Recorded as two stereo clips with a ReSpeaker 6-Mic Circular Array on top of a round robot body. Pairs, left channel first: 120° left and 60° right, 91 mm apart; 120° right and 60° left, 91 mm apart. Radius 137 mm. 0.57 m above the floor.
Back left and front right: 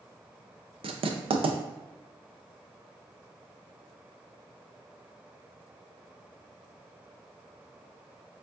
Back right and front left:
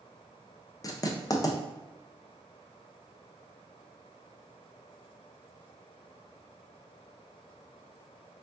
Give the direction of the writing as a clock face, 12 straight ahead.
2 o'clock.